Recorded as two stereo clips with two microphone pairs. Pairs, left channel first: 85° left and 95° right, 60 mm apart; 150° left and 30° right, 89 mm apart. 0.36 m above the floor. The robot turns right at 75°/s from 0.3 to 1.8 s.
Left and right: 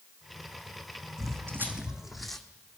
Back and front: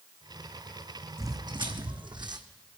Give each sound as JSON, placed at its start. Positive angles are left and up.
{"t": 1.2, "sound": "footsteps", "azimuth_deg": -90, "distance_m": 1.3}